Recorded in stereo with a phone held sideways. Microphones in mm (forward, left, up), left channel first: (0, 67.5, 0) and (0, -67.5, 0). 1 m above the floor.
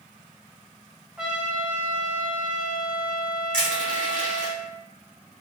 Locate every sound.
1.2 s a trumpet: 5° right (ahead or behind), 0.7 m
3.5 s crushing: 70° left (ahead or behind), 1.8 m